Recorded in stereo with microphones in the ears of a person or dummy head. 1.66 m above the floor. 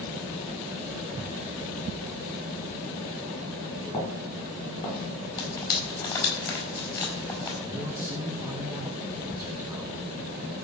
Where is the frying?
20° left (ahead or behind), 5.5 m.